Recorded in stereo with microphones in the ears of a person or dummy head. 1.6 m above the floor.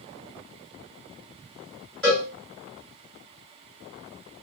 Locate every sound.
2.0 s a cowbell: centre (ahead or behind), 1.5 m